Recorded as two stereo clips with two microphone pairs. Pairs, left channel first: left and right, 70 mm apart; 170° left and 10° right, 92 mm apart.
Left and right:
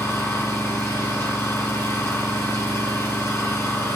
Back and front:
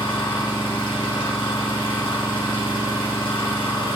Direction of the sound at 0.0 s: 140° left.